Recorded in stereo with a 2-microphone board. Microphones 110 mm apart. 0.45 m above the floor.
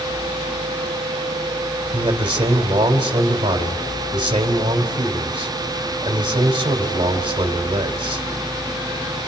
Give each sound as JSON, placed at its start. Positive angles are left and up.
{"t": 1.9, "sound": "a man speaking", "side_deg": -45, "distance_m": 2.5}